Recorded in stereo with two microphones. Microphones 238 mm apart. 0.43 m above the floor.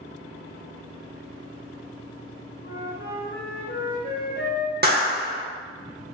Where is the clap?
40° right (ahead or behind), 0.7 m.